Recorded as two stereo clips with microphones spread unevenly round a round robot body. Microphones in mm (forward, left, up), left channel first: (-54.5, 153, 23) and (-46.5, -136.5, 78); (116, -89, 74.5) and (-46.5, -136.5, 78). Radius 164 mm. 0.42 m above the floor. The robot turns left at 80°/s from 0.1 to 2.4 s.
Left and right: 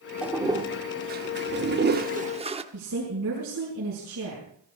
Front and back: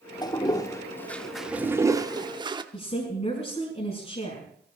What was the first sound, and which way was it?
A toilet flushing, 20° left.